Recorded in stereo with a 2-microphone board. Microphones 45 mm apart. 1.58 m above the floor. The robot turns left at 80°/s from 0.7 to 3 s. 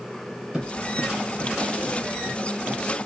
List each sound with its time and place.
0.5 s footsteps: 20° right (ahead or behind), 2 m; by 2.8 s 30° right (ahead or behind), 2.5 m